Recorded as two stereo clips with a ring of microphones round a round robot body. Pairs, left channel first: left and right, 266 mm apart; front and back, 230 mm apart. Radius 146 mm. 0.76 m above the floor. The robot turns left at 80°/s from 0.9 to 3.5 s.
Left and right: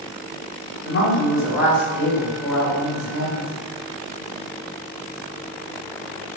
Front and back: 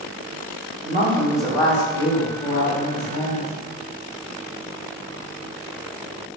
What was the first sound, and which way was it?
A woman speaking, 130° left.